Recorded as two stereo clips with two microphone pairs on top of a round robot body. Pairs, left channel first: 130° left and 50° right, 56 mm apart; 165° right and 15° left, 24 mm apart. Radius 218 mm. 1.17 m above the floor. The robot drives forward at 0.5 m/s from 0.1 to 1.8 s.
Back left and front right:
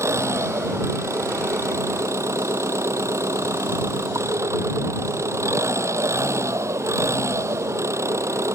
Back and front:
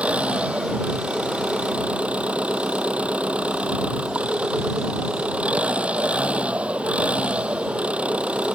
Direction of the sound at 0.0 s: 15° right.